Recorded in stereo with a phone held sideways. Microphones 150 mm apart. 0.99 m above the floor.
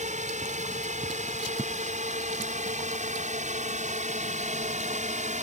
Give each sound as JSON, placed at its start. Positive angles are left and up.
{"t": 0.0, "sound": "a drone", "side_deg": -55}